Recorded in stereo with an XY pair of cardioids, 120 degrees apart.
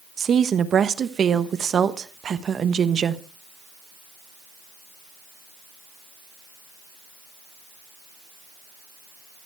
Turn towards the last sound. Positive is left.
turn(degrees=-45)